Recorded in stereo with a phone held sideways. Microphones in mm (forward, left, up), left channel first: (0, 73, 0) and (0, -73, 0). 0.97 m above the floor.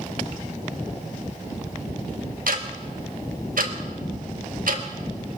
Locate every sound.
2.5 s ticking: 75° right (ahead or behind), 1.4 m